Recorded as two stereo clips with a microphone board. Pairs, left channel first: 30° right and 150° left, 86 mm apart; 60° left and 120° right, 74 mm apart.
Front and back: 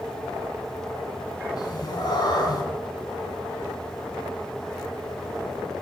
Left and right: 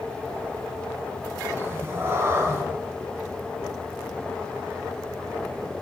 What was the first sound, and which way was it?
A cat meowing, 65° right.